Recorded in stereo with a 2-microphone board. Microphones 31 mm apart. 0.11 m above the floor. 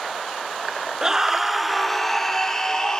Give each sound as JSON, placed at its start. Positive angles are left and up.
{"t": 1.0, "sound": "a scream", "side_deg": -20, "distance_m": 1.3}